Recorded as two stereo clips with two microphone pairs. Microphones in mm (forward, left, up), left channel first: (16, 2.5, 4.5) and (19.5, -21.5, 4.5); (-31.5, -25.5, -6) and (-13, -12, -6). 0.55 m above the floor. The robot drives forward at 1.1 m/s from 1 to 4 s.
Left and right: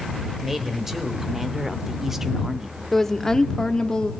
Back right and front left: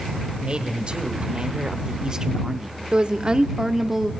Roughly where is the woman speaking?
Ahead left.